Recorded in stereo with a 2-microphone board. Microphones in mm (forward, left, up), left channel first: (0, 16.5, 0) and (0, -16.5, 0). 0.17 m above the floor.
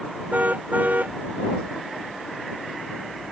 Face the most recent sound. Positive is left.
turn(degrees=-60)  # may be behind; listen again after turning